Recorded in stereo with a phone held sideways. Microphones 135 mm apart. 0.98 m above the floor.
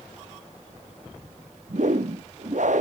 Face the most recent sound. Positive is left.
turn(degrees=-65)  # may be behind; listen again after turning